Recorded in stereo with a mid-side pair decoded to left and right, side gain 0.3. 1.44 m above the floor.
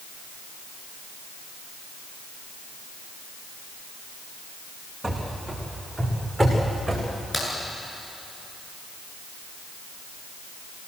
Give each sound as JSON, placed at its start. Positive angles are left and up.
{"t": 5.0, "sound": "running footsteps", "azimuth_deg": -15, "distance_m": 7.0}
{"t": 7.3, "sound": "a crack", "azimuth_deg": 25, "distance_m": 9.5}